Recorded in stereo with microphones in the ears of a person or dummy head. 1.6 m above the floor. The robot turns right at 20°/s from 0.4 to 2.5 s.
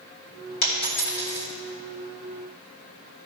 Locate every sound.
0.6 s a dropped coin: 55° left (ahead or behind), 2 m; by 1.5 s 45° left (ahead or behind), 2 m